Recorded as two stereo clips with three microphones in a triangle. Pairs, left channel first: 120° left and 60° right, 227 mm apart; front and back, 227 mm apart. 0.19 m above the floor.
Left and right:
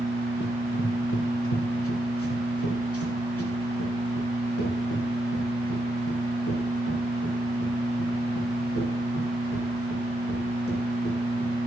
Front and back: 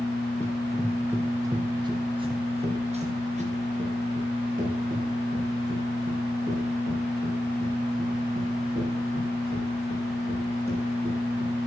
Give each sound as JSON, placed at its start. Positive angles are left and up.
{"t": 0.4, "sound": "running footsteps", "azimuth_deg": 80, "distance_m": 1.7}